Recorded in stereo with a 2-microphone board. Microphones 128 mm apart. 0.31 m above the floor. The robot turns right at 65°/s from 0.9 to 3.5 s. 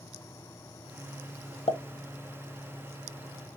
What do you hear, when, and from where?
1.7 s a pop: 55° left (ahead or behind), 0.5 m; by 1.8 s 50° left (ahead or behind), 0.5 m